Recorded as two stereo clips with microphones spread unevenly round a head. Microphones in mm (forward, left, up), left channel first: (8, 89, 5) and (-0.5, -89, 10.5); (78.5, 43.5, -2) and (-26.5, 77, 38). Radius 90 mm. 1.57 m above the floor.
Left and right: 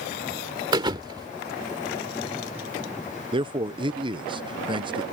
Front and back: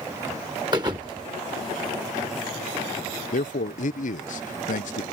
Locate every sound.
0.7 s a thud: 155° right
3.3 s a man speaking: 25° right